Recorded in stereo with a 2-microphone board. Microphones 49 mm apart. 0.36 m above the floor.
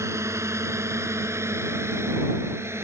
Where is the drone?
70° right (ahead or behind); by 2.9 s 60° right (ahead or behind).